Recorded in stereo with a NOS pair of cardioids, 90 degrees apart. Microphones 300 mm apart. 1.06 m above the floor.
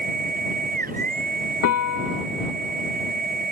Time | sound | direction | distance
0.0 | a machine running | 30° right | ?
1.6 | a piano | 60° left | ?